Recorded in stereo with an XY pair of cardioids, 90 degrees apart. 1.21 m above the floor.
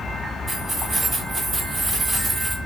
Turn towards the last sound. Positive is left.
turn(degrees=-40)